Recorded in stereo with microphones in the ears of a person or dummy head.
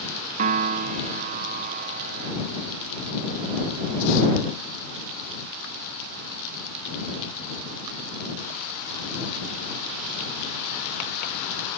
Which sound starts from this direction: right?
A piano, at 0.4 s.